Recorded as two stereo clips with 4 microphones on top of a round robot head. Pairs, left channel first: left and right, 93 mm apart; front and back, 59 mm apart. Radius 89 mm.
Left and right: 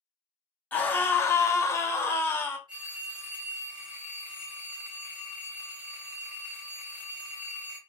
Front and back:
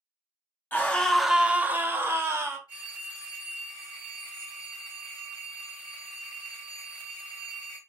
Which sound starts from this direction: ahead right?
A phone ringing, at 2.7 s.